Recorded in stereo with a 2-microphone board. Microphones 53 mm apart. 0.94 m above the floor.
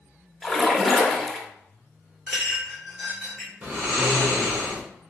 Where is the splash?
5° left (ahead or behind), 0.5 m.